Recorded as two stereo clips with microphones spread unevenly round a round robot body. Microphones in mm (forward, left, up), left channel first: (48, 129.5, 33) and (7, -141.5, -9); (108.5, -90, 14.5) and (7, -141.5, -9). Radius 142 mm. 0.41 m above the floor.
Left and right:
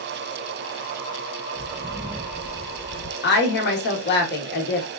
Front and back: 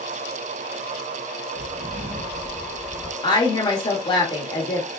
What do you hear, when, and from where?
1.6 s footsteps: 170° left, 1.2 m; by 3.1 s 55° left, 0.6 m
3.2 s a woman speaking: 60° left, 0.9 m